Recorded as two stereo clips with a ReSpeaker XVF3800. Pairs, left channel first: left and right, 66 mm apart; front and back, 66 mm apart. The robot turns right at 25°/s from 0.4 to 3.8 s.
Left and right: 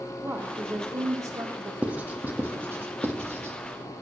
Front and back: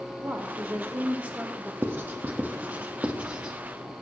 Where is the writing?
145° right, 1.4 m; by 3.5 s 100° right, 1.4 m.